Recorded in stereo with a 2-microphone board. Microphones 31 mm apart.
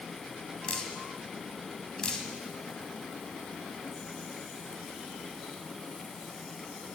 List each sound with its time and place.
0.6 s dripping: 25° left (ahead or behind), 1.7 m